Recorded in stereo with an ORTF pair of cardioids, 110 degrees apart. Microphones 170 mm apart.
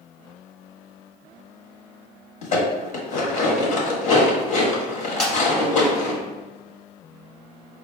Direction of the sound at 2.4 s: 50° left.